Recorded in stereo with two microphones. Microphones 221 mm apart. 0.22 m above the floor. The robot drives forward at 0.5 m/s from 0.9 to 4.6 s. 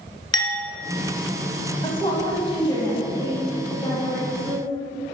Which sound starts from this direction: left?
A woman speaking, at 1.8 s.